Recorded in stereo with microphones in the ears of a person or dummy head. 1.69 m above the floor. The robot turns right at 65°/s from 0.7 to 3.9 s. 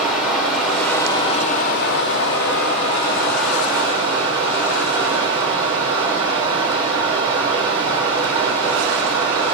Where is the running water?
5° right, 0.8 m; by 9.6 s 155° right, 0.8 m.